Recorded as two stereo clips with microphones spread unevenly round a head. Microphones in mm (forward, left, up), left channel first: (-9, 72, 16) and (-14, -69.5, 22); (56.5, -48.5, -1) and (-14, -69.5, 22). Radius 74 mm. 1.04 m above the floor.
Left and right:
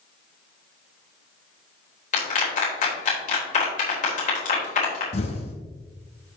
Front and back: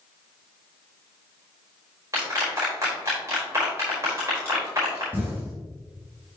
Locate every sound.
2.1 s a clap: 125° left, 4 m
5.1 s an explosion: 135° left, 2.0 m